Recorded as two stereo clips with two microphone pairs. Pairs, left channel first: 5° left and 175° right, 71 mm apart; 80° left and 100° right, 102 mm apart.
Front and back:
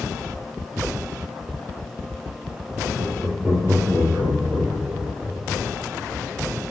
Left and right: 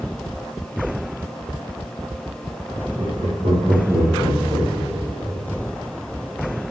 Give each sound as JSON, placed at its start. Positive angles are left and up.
{"t": 3.0, "sound": "laughter", "azimuth_deg": -90, "distance_m": 4.0}